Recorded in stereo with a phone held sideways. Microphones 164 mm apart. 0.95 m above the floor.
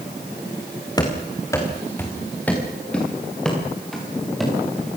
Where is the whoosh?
No whoosh in this recording.